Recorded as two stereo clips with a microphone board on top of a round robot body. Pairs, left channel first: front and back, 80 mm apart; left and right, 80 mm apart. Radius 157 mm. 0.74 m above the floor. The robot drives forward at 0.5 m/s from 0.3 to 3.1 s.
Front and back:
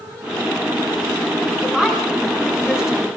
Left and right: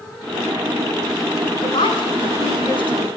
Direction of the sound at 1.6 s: 95° left.